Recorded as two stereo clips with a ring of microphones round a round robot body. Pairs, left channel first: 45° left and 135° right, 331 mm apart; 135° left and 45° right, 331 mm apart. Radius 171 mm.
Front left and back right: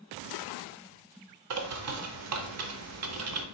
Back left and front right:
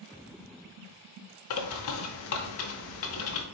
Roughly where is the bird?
Behind.